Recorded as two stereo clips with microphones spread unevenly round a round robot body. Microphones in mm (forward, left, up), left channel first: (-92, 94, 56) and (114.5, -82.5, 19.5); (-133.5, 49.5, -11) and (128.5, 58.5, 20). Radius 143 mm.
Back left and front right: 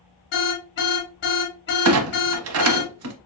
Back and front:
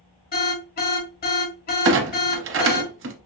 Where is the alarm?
175° left, 1.9 m.